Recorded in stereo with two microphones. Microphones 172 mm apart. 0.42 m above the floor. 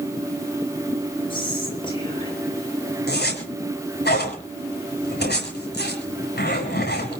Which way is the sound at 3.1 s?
75° left (ahead or behind).